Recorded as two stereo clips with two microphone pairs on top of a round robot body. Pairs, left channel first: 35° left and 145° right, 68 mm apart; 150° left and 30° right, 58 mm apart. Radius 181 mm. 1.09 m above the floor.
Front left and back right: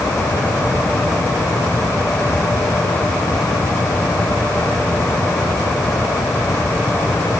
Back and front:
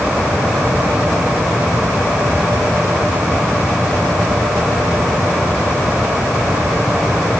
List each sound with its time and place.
Only background noise.